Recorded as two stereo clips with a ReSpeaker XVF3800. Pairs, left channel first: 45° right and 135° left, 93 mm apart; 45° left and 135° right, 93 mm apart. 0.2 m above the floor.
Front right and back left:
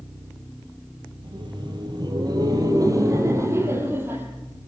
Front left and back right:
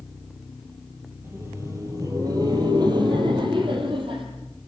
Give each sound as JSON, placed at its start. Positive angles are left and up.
{"t": 1.2, "sound": "laughter", "azimuth_deg": 160, "distance_m": 4.5}